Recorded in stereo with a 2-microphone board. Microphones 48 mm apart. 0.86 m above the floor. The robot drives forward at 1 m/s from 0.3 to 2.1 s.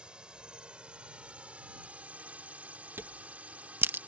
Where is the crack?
55° right (ahead or behind).